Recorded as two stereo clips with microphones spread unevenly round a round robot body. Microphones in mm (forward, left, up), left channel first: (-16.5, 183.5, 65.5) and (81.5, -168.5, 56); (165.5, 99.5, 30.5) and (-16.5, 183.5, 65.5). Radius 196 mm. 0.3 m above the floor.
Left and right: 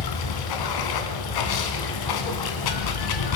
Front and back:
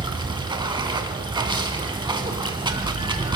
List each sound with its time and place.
0.0 s running water: 85° left, 2.5 m